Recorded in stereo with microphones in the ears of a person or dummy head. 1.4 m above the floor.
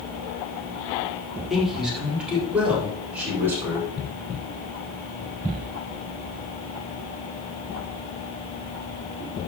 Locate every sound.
1.5 s a man speaking: 5° right (ahead or behind), 4 m; by 3.9 s 15° right (ahead or behind), 5.5 m